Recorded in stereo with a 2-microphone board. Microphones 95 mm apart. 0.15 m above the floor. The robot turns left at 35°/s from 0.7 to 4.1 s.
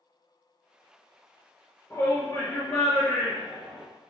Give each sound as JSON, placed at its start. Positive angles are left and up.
{"t": 1.9, "sound": "a shout", "azimuth_deg": 140, "distance_m": 2.5}